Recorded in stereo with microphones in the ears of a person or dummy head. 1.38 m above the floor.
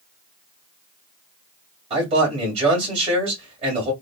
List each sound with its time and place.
1.9 s a man speaking: 35° right (ahead or behind), 2 m